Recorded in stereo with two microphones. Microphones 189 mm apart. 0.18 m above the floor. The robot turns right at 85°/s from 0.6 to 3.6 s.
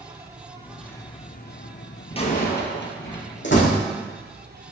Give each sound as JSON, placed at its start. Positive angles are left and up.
{"t": 0.0, "sound": "an insect", "azimuth_deg": -15, "distance_m": 1.3}
{"t": 2.1, "sound": "a door slam", "azimuth_deg": 25, "distance_m": 2.5}
{"t": 3.4, "sound": "a door slam", "side_deg": 75, "distance_m": 5.5}